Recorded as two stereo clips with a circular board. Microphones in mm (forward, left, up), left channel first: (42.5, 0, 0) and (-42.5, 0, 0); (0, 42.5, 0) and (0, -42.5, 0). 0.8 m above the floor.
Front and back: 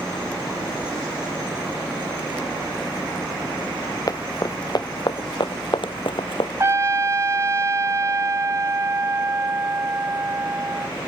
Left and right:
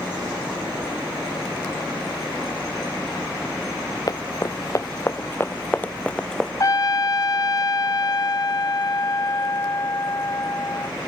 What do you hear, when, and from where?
4.1 s running footsteps: 45° left; by 6.5 s 5° left
6.6 s a trumpet: 125° left